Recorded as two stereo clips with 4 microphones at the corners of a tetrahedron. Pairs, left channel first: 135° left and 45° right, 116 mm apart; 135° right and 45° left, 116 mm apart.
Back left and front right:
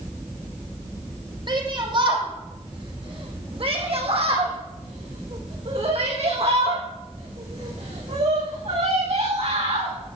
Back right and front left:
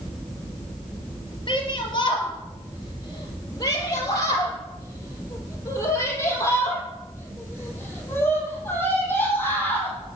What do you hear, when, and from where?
1.5 s a shout: 90° right, 4 m; by 9.9 s 60° right, 7.5 m